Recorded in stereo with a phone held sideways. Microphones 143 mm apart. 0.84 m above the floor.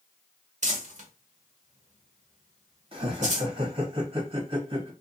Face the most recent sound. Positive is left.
turn(degrees=-40)  # may be behind; listen again after turning